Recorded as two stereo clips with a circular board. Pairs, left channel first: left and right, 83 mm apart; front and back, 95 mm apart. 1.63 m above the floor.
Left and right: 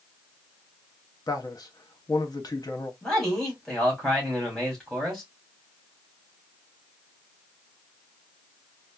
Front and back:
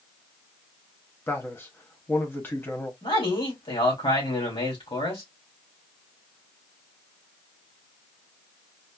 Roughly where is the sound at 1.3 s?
Ahead left.